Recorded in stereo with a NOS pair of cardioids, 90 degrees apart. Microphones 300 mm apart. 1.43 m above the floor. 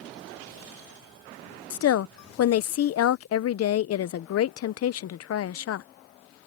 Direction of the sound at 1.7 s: 55° left.